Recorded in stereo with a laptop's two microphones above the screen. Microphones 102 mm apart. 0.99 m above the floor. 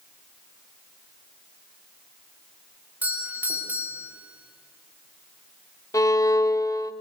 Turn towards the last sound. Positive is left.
turn(degrees=35)  # may be behind; listen again after turning